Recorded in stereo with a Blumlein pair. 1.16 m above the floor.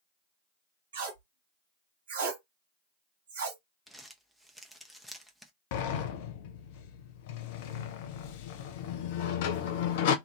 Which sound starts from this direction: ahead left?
A sliding door, at 5.7 s.